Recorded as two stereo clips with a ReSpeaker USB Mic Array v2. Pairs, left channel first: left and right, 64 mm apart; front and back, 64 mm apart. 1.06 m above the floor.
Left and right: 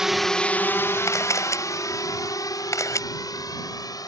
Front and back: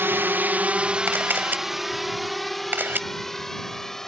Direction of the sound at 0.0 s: 165° right.